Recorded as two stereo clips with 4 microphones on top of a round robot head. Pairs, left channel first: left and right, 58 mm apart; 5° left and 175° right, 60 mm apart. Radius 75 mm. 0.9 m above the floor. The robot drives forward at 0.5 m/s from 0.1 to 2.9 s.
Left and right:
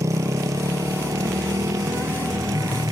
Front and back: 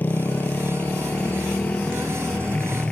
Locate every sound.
0.0 s a motorcycle: 60° right; by 2.9 s 70° right